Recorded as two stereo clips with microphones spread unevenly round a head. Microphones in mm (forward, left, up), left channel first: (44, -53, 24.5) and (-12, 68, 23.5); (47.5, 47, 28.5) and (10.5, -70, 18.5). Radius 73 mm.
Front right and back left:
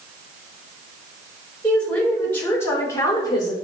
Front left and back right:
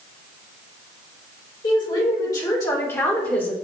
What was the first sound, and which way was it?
A woman speaking, 15° left.